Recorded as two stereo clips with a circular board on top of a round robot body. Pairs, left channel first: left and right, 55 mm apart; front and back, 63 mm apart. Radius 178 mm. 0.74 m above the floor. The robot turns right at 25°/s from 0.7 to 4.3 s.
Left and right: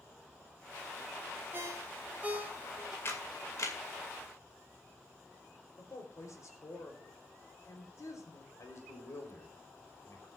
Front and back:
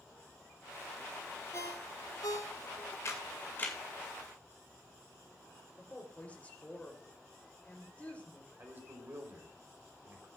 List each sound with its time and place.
1.5 s a ringtone: 45° right, 1.7 m; by 3.0 s 10° right, 1.7 m
3.0 s a camera shutter: 45° left, 2.5 m; by 3.8 s 65° left, 2.5 m
5.8 s a woman speaking: 70° left, 3.5 m
8.6 s a man speaking: 125° left, 3.5 m